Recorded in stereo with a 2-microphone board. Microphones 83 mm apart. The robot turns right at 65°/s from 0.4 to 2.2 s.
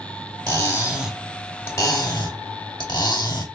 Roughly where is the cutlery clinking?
Ahead right.